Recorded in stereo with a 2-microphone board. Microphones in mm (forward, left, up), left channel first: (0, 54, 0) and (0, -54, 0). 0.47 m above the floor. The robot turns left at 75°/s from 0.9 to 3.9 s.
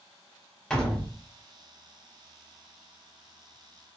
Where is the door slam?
5° left (ahead or behind), 0.8 m; by 1.1 s centre (ahead or behind), 0.8 m.